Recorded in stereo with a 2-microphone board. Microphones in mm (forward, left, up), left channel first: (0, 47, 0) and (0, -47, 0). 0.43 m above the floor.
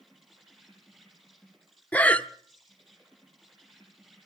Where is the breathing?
15° left (ahead or behind), 0.7 m.